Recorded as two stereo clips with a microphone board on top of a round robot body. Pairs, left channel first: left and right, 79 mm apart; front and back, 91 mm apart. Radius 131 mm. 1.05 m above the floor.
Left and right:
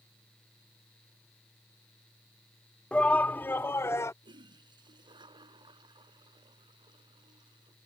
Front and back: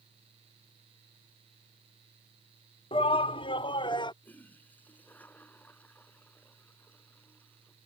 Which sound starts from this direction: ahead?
A shout, at 2.9 s.